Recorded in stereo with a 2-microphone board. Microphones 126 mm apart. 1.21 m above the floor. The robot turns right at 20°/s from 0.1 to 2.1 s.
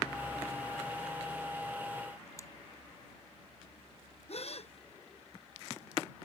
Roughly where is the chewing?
Left.